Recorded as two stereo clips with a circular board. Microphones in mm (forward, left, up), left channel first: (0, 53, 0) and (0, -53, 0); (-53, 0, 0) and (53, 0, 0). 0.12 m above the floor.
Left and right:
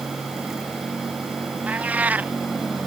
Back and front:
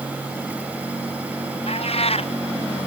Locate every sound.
1.7 s a cat meowing: 165° right